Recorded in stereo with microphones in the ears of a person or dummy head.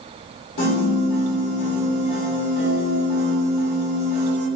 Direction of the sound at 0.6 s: 60° left (ahead or behind).